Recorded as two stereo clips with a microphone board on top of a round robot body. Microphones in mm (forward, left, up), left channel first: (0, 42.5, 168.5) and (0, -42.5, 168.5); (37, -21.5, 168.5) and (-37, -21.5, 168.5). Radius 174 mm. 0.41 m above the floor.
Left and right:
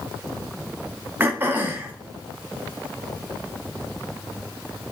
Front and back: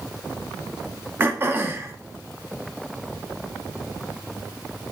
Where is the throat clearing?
140° right, 1.5 m.